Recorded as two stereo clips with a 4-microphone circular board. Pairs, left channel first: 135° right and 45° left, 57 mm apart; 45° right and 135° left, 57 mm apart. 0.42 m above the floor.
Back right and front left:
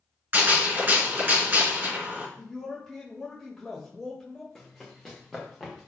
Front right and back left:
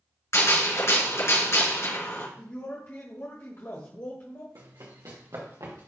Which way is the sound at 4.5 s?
140° left.